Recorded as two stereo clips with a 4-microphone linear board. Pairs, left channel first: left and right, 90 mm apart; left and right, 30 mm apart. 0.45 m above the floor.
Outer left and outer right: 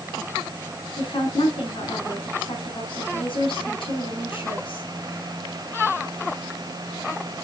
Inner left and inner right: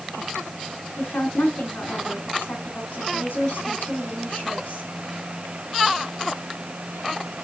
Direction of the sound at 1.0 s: 70° left (ahead or behind).